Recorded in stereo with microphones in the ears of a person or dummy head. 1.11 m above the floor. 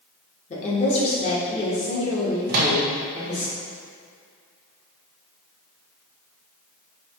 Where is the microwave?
50° right (ahead or behind), 0.6 m.